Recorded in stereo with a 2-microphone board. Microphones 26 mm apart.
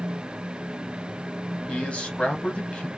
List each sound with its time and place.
1.7 s a man speaking: 55° left (ahead or behind), 1.6 m